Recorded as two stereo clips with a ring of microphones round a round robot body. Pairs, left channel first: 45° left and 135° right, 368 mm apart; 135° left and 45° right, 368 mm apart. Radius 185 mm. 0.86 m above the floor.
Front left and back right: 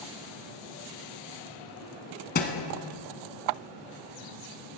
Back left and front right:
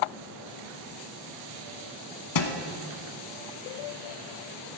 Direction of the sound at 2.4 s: 105° left.